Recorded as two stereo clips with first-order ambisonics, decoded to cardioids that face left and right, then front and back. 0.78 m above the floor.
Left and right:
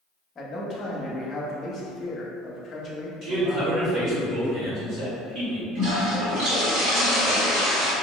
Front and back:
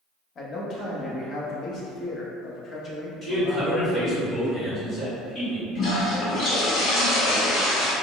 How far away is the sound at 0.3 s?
About 0.6 m.